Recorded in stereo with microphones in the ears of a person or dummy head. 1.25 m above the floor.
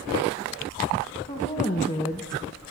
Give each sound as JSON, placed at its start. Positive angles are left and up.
{"t": 1.3, "sound": "a woman speaking", "side_deg": 25, "distance_m": 1.9}